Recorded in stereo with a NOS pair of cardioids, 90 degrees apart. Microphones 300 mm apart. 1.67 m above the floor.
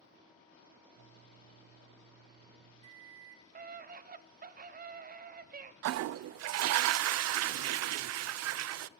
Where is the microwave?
65° right, 4 m.